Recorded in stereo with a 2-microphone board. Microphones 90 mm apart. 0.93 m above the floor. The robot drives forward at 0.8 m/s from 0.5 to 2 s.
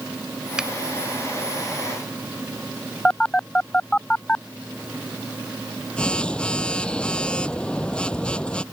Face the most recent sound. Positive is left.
turn(degrees=10)  # may be behind; listen again after turning